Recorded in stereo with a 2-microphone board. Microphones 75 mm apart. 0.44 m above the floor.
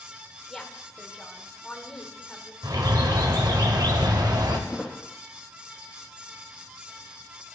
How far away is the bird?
About 1.2 m.